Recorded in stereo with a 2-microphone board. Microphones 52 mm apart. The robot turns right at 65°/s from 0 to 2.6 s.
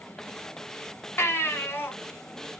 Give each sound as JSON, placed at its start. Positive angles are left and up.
{"t": 1.2, "sound": "a baby crying", "azimuth_deg": 75, "distance_m": 0.8}